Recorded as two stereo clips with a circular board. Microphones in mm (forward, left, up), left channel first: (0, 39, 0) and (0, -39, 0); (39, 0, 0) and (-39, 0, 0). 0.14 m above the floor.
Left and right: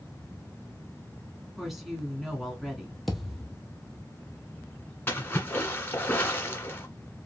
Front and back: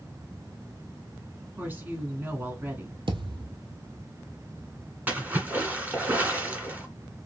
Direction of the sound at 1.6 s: 175° right.